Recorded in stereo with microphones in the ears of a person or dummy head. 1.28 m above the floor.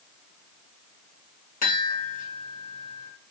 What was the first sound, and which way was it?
A chime, 45° left (ahead or behind).